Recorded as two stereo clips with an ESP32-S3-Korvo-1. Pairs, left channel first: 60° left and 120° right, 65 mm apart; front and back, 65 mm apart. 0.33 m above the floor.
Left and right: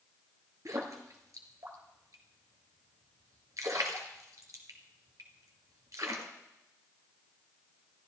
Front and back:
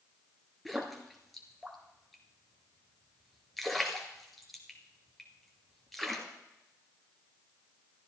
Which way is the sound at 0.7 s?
90° right.